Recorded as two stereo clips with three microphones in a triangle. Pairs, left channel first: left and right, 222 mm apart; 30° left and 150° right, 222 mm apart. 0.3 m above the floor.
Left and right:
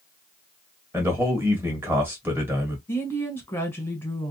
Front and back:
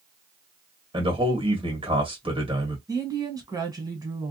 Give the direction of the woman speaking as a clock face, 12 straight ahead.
7 o'clock.